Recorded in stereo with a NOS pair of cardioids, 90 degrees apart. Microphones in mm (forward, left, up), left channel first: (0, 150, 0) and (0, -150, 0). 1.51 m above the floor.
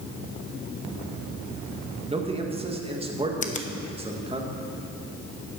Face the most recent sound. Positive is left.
turn(degrees=25)